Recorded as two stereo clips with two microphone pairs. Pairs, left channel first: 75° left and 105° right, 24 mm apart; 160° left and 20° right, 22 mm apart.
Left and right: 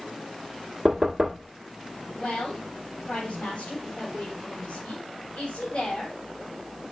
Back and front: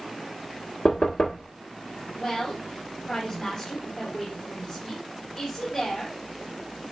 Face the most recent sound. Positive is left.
turn(degrees=95)